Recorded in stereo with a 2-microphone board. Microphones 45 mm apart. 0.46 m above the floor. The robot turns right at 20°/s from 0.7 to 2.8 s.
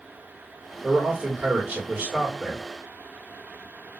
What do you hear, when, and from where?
0.8 s a man speaking: 125° right, 1.3 m; by 2.6 s 90° right, 1.3 m